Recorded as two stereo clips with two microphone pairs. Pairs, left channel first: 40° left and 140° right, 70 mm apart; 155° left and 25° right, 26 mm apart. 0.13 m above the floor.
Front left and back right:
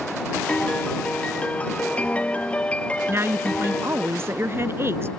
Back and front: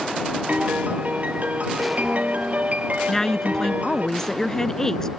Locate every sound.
0.5 s a piano: 30° right
3.1 s a woman speaking: 145° right